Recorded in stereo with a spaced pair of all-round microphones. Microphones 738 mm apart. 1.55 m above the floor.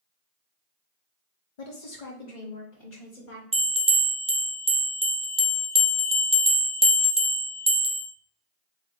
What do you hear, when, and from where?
1.6 s a woman speaking: 60° left (ahead or behind), 0.7 m; by 3.4 s 65° left (ahead or behind), 1.7 m
3.5 s a bell: 10° right (ahead or behind), 0.6 m